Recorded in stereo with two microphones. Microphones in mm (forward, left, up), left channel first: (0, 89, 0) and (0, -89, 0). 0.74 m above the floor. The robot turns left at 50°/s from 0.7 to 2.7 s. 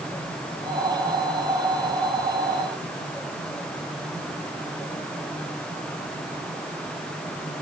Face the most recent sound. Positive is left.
No sound to turn to.